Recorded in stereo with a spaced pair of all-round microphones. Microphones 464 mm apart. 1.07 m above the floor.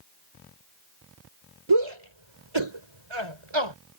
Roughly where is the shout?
Right.